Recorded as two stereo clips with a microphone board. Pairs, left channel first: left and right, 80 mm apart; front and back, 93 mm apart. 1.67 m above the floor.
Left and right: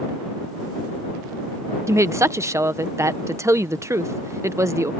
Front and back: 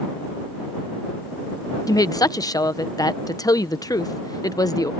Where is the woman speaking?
40° right.